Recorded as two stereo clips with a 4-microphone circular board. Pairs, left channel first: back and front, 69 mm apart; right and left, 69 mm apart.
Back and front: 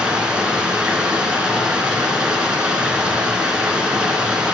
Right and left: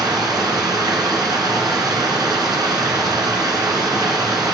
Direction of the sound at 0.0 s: 75° left.